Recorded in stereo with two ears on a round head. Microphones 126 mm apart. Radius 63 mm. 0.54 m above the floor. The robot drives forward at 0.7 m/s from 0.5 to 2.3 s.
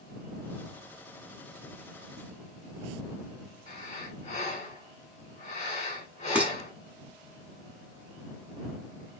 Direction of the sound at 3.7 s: 50° left (ahead or behind).